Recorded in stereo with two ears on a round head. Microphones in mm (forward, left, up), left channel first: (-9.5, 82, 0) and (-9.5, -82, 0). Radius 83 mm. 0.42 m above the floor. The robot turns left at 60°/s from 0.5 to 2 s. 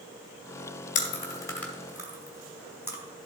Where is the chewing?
45° left (ahead or behind), 2.5 m; by 3.0 s 15° right (ahead or behind), 2.5 m.